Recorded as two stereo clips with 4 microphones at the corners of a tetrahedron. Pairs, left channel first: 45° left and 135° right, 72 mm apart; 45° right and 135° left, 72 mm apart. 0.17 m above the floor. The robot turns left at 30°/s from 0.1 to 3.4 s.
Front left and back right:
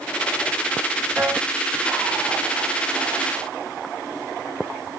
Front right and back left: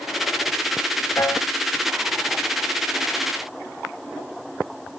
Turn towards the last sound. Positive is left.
turn(degrees=-145)